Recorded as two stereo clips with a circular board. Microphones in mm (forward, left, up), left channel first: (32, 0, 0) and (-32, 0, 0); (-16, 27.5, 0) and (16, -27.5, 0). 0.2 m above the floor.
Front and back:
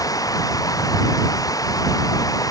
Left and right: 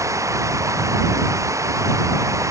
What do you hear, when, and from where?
0.0 s running water: 25° right